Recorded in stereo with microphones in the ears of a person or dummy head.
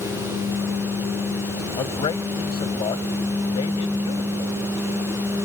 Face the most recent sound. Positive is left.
turn(degrees=30)  # may be behind; listen again after turning